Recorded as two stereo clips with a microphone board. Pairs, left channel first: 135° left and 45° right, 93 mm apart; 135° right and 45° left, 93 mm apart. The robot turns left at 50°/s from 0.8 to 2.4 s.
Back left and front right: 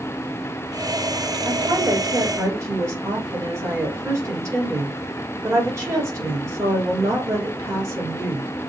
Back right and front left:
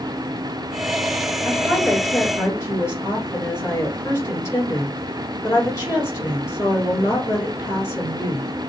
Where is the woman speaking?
40° right, 2 m; by 8.5 s 85° right, 2 m.